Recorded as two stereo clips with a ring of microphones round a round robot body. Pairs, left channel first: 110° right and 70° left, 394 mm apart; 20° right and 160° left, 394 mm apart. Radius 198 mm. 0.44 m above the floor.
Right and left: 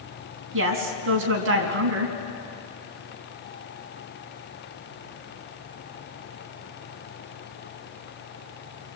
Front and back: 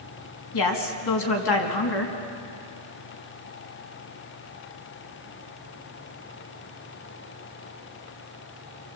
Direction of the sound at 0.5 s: 10° left.